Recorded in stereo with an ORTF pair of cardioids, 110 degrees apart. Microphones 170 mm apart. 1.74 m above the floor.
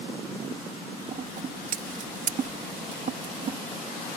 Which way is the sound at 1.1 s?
45° right.